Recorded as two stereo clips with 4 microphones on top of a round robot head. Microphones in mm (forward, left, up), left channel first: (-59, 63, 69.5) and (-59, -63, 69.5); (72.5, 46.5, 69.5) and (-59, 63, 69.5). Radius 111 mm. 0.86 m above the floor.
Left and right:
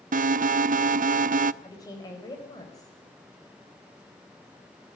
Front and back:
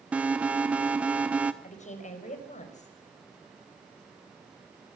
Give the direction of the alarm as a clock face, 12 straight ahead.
3 o'clock.